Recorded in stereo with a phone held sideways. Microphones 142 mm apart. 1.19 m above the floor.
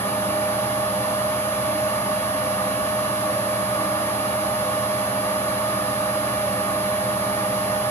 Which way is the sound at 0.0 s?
20° left (ahead or behind).